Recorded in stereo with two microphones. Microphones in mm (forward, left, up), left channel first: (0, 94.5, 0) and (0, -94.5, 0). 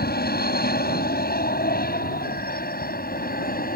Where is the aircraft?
55° left (ahead or behind); by 3.8 s 50° left (ahead or behind).